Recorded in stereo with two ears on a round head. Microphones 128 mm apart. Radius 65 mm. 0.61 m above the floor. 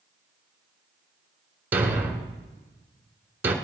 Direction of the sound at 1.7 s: 15° right (ahead or behind).